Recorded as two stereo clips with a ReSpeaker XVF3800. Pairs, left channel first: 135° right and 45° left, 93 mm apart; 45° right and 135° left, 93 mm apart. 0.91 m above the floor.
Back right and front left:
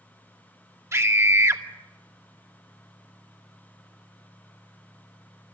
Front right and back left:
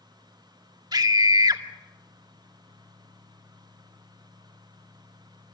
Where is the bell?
I don't hear a bell.